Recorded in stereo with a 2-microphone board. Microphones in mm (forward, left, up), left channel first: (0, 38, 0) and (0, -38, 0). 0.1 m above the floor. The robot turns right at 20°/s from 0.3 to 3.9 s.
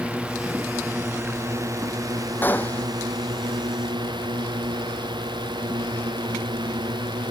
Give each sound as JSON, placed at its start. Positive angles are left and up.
{"t": 0.0, "sound": "a drone", "azimuth_deg": -165}
{"t": 2.4, "sound": "a gunshot", "side_deg": 25}